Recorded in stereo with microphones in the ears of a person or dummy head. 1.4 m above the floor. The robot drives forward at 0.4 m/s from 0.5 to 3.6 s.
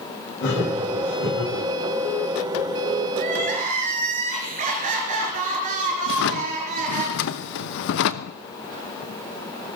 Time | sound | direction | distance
0.4 | laughter | 70° left (ahead or behind) | 8.5 m
3.2 | crying | 45° right (ahead or behind) | 4 m
6.1 | a drawer | 50° left (ahead or behind) | 0.8 m